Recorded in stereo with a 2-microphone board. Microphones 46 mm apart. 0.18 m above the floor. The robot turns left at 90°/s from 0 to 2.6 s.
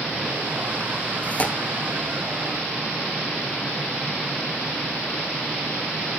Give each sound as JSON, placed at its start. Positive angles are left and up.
{"t": 1.2, "sound": "tearing paper", "side_deg": 40, "distance_m": 1.8}